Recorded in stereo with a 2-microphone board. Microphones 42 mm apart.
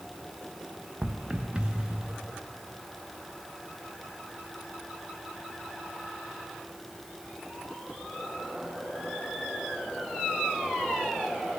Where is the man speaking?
I don't hear a man speaking.